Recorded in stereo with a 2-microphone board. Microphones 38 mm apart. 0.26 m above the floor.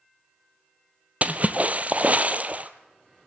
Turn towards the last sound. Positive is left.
turn(degrees=-40)  # may be behind; listen again after turning